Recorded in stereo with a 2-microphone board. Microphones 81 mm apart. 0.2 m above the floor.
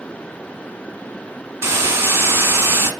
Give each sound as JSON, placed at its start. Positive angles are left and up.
{"t": 1.6, "sound": "a hiss", "side_deg": -30, "distance_m": 0.8}